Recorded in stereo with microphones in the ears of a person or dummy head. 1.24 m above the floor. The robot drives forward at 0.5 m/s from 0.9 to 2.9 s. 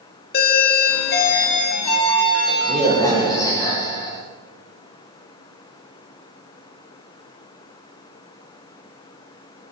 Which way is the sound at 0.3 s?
50° left (ahead or behind).